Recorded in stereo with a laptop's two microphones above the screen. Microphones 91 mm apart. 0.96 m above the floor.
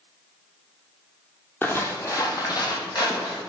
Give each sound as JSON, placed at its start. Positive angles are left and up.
{"t": 1.6, "sound": "footsteps", "side_deg": 25, "distance_m": 1.1}